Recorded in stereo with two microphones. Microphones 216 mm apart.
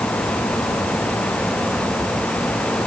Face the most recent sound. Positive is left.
No sound to turn to.